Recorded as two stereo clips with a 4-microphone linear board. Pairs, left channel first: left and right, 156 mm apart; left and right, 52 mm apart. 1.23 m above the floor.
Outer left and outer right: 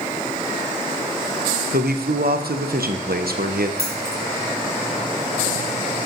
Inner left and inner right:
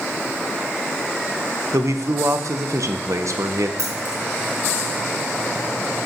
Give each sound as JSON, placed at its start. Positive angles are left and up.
{"t": 1.7, "sound": "a man speaking", "side_deg": -80, "distance_m": 0.5}
{"t": 3.8, "sound": "keys jangling", "side_deg": -85, "distance_m": 1.2}